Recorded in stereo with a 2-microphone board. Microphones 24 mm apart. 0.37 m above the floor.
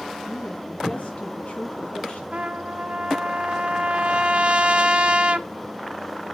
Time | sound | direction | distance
0.3 | a woman speaking | 65° left (ahead or behind) | 3 m
2.3 | a trumpet | 50° right (ahead or behind) | 0.6 m